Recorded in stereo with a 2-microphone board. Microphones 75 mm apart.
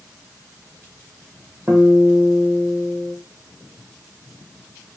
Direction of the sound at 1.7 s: 25° right (ahead or behind).